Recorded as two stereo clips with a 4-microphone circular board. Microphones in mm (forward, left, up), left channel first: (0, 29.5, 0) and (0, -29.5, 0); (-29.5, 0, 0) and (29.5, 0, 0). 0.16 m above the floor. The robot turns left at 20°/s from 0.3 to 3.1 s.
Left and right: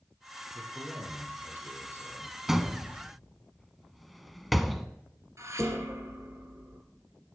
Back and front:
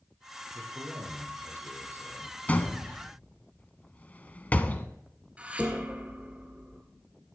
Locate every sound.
0.5 s a man speaking: 20° right, 4.5 m; by 2.4 s 55° right, 4.5 m
2.5 s a door slam: 165° right, 0.7 m; by 4.9 s 175° right, 0.7 m
5.4 s dishes clattering: 65° right, 1.8 m